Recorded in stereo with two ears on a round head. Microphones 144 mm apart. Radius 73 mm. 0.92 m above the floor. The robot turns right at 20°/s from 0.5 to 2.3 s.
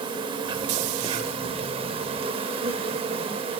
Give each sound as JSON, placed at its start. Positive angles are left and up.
{"t": 0.0, "sound": "an insect", "azimuth_deg": -115, "distance_m": 0.7}